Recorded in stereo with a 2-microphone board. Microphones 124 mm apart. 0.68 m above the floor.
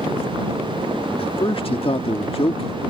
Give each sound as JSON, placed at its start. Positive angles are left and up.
{"t": 1.2, "sound": "a man speaking", "side_deg": 45}